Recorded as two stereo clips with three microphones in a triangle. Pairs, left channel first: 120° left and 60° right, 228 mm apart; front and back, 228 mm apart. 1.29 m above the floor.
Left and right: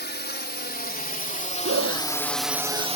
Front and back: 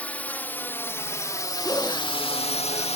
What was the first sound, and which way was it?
A drone, 85° left.